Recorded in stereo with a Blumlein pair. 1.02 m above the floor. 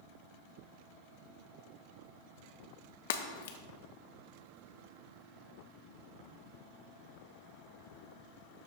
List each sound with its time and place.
3.1 s breaking glass: 55° left, 0.8 m